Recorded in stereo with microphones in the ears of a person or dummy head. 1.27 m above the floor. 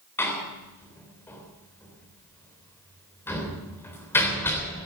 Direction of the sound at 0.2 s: 10° left (ahead or behind).